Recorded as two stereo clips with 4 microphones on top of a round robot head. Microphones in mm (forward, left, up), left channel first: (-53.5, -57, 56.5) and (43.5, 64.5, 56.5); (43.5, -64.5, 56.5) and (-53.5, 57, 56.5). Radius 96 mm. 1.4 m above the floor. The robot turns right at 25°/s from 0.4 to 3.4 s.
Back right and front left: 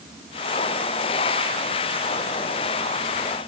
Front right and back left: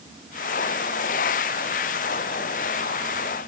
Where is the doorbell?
No doorbell in this recording.